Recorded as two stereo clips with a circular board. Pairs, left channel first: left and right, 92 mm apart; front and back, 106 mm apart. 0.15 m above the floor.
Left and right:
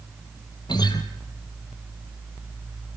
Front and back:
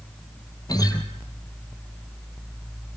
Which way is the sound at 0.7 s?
55° left.